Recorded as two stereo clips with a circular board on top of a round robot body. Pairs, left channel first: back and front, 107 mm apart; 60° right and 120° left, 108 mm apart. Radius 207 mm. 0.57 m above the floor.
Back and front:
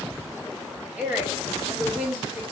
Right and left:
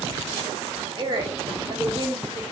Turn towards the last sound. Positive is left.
turn(degrees=75)